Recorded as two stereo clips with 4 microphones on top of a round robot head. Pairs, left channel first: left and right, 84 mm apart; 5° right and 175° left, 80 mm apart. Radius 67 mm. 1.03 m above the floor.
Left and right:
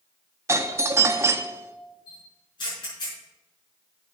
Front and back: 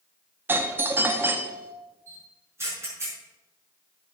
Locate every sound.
0.5 s a doorbell: 130° right, 1.1 m
2.1 s a camera shutter: 120° left, 6 m